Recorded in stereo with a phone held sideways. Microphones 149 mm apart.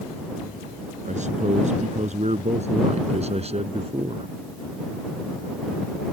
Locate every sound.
1.1 s a man speaking: 50° right (ahead or behind); by 4.3 s 40° right (ahead or behind)